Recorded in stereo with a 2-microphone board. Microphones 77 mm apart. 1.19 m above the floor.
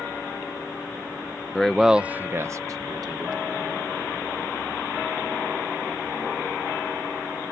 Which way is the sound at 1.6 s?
10° left (ahead or behind).